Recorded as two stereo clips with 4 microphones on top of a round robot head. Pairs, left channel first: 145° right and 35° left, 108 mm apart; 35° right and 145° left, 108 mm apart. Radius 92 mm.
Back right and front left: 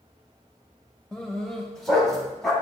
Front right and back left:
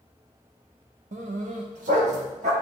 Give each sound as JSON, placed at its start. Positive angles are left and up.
{"t": 1.1, "sound": "a dog barking", "azimuth_deg": 135, "distance_m": 0.9}